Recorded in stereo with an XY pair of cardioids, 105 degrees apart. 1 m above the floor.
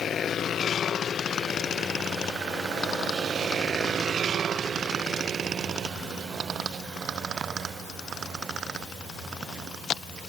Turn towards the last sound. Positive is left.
No sound to turn to.